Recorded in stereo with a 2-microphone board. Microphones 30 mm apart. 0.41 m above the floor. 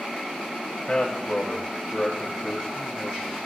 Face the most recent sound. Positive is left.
turn(degrees=25)  # may be behind; listen again after turning